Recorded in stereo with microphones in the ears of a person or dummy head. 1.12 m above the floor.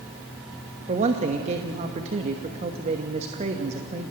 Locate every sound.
0.9 s a man speaking: 35° right (ahead or behind), 1.3 m